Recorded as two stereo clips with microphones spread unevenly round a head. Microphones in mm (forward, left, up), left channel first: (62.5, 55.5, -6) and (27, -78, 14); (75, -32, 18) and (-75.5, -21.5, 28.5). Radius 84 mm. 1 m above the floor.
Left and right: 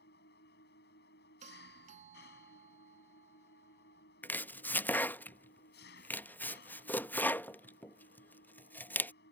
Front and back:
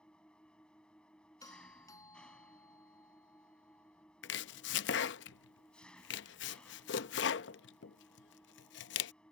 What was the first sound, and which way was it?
An engine running, 80° left.